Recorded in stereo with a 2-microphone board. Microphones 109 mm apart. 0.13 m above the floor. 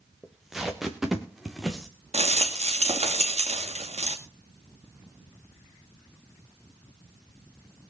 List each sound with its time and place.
0.2 s tape being pulled: centre (ahead or behind), 2.5 m
2.1 s a rattle: 75° right (ahead or behind), 2 m